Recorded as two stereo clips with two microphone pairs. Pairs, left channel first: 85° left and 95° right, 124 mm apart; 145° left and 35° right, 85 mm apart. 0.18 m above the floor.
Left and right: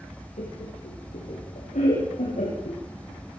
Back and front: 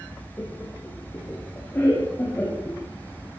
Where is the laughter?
85° left, 6.5 m; by 2.8 s 80° left, 8.5 m.